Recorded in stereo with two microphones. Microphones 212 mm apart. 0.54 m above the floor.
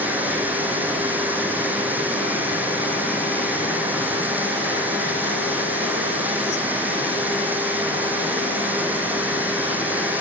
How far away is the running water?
About 6 m.